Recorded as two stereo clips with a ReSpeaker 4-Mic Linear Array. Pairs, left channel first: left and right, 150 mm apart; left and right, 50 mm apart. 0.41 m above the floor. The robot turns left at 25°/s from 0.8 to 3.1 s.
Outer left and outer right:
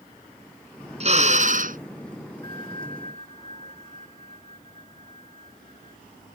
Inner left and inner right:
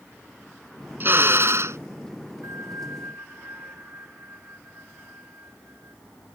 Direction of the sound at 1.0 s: 45° right (ahead or behind).